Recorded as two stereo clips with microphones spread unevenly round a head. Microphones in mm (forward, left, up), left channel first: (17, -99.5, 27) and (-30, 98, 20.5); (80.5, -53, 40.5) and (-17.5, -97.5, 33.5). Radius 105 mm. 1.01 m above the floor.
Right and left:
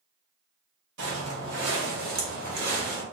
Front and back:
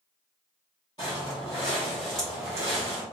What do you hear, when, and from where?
1.0 s footsteps: 90° left, 1.6 m; by 3.0 s 160° left, 1.2 m